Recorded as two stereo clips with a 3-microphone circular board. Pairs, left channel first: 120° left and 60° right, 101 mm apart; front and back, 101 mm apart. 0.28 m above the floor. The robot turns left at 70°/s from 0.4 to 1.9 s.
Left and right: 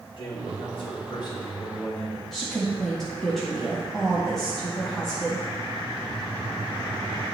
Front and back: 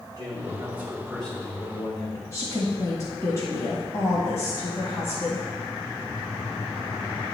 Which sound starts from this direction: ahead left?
A woman speaking, at 2.3 s.